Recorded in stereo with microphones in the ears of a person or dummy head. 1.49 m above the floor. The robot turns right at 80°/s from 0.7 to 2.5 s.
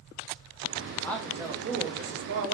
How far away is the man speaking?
About 0.6 m.